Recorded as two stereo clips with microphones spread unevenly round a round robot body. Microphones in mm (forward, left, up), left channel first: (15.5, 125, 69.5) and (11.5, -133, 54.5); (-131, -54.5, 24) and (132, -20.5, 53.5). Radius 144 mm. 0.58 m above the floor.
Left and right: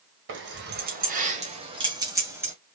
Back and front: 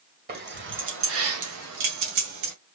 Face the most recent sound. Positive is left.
turn(degrees=-10)